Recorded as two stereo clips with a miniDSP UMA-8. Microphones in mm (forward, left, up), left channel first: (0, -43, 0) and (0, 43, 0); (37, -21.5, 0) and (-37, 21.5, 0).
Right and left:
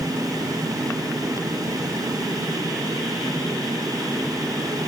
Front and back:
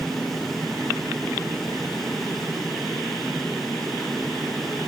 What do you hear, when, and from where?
Only background noise.